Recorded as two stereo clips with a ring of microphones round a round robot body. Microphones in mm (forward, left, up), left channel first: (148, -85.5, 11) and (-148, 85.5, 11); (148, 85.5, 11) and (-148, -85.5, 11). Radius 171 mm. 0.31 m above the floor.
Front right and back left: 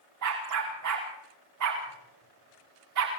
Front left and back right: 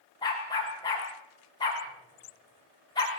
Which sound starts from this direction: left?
A dog barking, at 0.2 s.